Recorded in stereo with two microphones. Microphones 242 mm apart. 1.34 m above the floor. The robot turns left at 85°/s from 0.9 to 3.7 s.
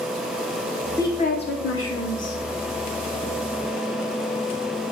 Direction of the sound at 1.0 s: 170° left.